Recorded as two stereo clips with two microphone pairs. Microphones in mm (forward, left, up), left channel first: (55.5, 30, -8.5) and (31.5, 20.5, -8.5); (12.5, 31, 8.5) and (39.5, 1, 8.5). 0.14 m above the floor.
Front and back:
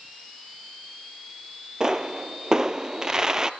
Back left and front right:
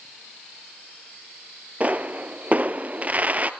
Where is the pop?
95° right, 0.8 m.